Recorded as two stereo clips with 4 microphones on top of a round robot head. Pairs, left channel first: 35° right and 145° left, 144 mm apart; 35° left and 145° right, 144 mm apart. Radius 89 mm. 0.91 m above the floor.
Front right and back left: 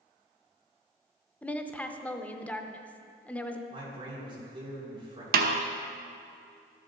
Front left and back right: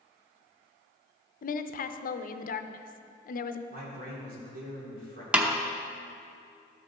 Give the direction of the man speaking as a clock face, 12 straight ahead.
5 o'clock.